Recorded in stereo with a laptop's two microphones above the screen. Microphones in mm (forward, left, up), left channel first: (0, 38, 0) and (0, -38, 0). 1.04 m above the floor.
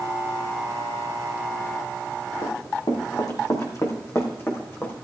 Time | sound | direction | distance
2.4 | running footsteps | 70° left (ahead or behind) | 3.5 m